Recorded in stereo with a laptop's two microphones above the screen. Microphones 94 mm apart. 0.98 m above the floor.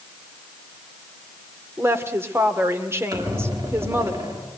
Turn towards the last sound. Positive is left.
turn(degrees=-45)  # may be behind; listen again after turning